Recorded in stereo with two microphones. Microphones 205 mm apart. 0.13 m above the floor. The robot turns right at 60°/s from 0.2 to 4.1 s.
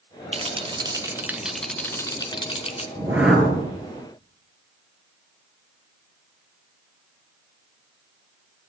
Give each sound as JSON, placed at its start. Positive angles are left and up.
{"t": 0.3, "sound": "a rattle", "side_deg": -30, "distance_m": 0.8}
{"t": 3.0, "sound": "a whoosh", "azimuth_deg": -25, "distance_m": 2.0}